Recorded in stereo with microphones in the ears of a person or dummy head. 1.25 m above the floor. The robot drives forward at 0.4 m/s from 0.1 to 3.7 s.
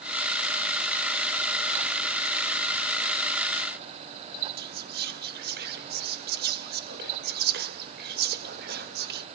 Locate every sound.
4.6 s whispering: 45° right (ahead or behind), 0.6 m